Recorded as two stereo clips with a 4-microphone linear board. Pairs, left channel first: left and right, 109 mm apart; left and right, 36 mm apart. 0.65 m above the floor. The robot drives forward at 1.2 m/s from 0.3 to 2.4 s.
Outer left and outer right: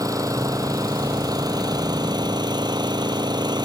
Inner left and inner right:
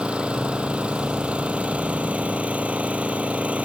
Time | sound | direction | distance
0.0 | an engine running | 30° right (ahead or behind) | ?